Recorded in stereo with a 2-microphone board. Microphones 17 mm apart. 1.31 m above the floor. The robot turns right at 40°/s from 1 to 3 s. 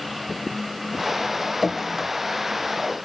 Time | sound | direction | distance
1.6 | dripping | 15° right (ahead or behind) | 0.9 m